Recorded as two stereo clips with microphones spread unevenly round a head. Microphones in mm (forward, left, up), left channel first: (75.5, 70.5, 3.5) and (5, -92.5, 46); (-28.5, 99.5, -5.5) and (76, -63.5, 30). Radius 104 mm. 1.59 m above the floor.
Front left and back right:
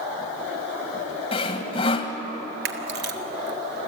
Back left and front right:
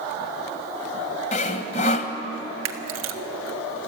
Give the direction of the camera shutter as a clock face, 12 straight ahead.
3 o'clock.